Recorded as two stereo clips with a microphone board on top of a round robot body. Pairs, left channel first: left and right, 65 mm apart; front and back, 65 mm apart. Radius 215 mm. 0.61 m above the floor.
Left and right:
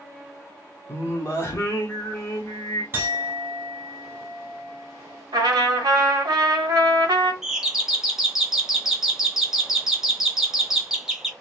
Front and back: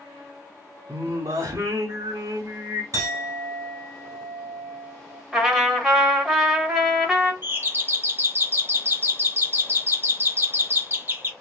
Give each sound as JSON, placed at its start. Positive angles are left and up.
{"t": 0.9, "sound": "singing", "azimuth_deg": 140, "distance_m": 0.7}
{"t": 2.9, "sound": "a clink", "azimuth_deg": -150, "distance_m": 1.7}
{"t": 5.3, "sound": "a trumpet", "azimuth_deg": -100, "distance_m": 1.5}
{"t": 7.4, "sound": "a doorbell", "azimuth_deg": -170, "distance_m": 1.1}